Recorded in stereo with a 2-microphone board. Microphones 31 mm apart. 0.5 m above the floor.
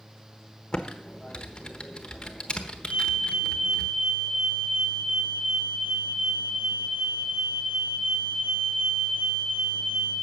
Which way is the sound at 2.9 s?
55° right (ahead or behind).